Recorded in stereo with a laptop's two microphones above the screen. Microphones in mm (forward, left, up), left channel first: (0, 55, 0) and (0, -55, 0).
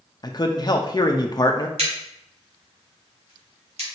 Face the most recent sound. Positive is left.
turn(degrees=-80)